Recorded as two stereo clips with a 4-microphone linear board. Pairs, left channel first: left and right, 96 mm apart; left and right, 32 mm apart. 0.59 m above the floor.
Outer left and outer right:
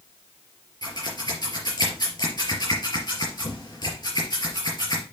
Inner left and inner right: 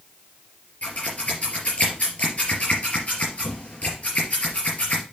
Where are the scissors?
45° left (ahead or behind), 4 m.